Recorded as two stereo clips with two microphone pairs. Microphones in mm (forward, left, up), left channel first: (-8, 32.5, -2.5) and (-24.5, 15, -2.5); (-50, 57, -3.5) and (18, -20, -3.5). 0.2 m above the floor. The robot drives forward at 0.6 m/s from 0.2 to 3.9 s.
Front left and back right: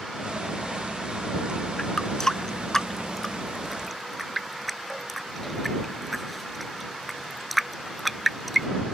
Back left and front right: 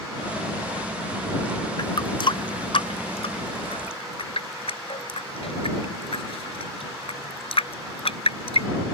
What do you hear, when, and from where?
1.8 s a running tap: 100° left; by 8.7 s 140° left